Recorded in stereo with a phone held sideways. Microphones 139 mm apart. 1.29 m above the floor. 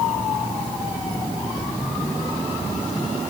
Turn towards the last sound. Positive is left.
No sound to turn to.